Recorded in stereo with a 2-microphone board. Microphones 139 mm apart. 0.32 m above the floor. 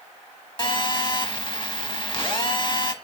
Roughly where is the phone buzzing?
Left.